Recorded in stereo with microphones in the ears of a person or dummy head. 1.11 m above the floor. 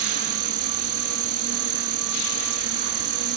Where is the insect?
70° right (ahead or behind).